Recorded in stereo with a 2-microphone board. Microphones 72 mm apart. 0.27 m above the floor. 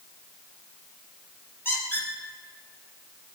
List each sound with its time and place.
1.6 s a squeak: 30° left (ahead or behind), 4.5 m